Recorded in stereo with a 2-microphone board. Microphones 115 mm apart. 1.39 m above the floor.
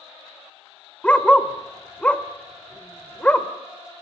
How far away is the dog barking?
About 1.4 m.